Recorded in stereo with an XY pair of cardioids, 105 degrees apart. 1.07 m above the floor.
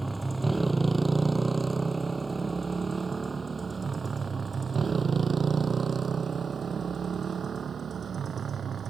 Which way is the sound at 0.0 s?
15° right.